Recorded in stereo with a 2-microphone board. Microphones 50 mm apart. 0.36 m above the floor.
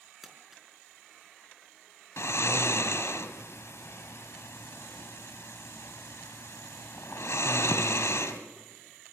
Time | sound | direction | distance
0.2 | crumpling | 5° right (ahead or behind) | 4.5 m
2.2 | snoring | 65° left (ahead or behind) | 1.8 m